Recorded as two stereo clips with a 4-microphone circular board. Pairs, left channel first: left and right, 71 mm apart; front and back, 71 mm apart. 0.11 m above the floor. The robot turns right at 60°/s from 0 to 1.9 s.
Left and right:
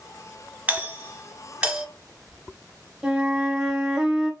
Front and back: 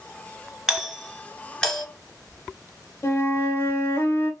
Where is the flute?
20° right, 1.1 m.